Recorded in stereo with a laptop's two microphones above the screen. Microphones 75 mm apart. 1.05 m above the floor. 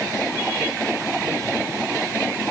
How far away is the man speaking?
I don't hear a man speaking.